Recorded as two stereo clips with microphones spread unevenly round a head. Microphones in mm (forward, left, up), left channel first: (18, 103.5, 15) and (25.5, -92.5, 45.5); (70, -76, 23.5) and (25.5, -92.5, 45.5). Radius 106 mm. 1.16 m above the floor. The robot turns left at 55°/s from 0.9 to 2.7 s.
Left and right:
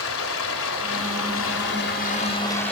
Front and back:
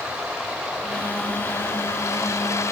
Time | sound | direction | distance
0.0 | running water | 110° left | 4.5 m